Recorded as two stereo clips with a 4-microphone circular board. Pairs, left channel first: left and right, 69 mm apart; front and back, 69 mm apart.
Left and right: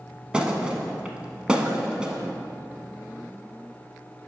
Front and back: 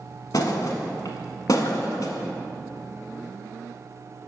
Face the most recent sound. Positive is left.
turn(degrees=-15)